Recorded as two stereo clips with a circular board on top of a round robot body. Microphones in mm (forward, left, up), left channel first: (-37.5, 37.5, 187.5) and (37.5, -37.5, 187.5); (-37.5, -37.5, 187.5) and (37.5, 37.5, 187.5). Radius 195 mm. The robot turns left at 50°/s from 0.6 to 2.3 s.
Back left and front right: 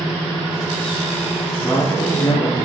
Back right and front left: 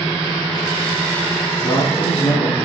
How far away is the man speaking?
About 2 m.